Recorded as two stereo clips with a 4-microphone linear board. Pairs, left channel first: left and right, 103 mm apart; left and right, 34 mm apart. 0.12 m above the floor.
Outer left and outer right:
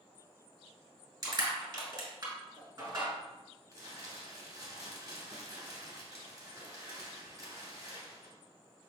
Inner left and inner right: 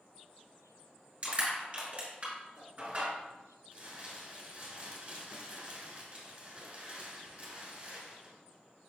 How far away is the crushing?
About 2 m.